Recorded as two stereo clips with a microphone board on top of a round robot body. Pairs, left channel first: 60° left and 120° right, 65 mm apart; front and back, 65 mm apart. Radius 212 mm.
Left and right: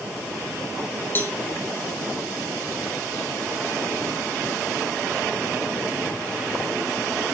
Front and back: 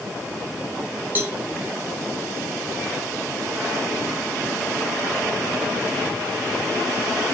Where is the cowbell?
120° left, 1.6 m.